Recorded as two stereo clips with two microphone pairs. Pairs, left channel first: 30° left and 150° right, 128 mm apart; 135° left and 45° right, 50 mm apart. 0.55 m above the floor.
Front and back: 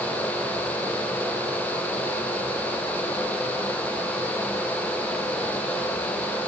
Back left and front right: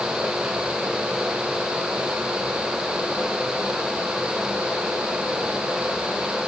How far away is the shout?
I don't hear a shout.